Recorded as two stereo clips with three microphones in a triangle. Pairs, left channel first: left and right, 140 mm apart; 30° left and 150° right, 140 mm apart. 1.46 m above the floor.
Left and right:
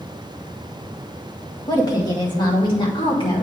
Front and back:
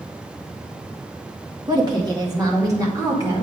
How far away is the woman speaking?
About 1.9 m.